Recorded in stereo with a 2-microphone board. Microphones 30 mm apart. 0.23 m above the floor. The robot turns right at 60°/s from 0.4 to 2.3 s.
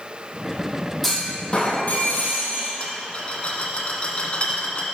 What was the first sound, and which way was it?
A clunk, straight ahead.